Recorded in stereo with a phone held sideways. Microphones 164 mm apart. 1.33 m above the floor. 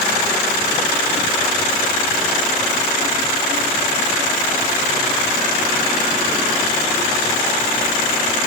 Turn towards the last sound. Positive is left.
No sound to turn to.